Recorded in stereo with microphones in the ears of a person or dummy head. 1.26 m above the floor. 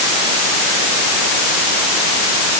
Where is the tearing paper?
I don't hear tearing paper.